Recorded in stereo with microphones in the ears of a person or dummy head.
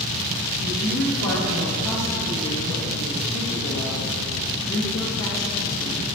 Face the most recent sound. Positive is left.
turn(degrees=85)